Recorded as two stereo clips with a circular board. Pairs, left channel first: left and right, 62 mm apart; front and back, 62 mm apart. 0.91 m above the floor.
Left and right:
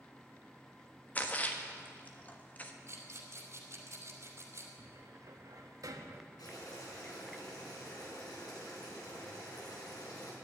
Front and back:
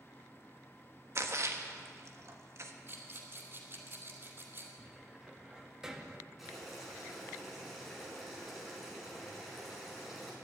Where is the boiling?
95° left, 5.5 m.